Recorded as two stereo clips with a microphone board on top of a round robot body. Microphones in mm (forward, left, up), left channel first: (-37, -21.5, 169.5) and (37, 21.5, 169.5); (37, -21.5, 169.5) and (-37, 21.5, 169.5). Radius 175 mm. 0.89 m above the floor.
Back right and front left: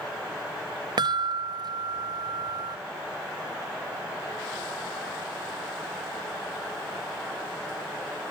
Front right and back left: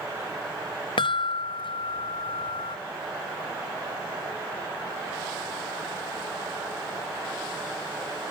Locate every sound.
1.0 s a chime: 5° right